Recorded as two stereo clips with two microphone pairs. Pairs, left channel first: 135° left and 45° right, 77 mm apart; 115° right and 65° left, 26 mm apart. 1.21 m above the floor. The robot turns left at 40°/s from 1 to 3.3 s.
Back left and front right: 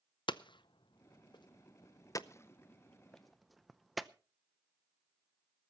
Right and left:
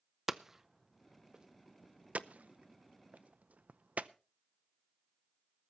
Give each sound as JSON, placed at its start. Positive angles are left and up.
{"t": 0.3, "sound": "hammering", "azimuth_deg": 140, "distance_m": 0.6}